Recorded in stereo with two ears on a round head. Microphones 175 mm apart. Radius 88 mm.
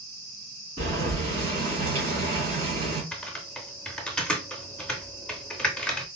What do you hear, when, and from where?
0.8 s boiling: 35° right (ahead or behind), 2 m
3.1 s typing on a keyboard: 5° left (ahead or behind), 0.6 m